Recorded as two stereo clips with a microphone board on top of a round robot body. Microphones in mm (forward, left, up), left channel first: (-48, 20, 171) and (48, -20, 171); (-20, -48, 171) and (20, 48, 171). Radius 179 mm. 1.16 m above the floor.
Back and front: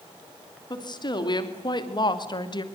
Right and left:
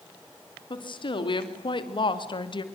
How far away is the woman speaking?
About 3.5 m.